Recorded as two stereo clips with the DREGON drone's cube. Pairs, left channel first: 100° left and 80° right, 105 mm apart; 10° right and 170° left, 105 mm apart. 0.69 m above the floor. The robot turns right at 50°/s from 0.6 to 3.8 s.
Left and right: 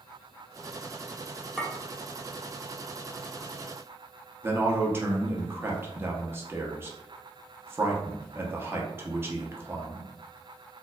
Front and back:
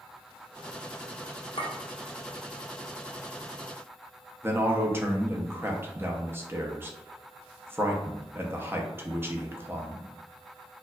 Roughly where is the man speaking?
Behind right.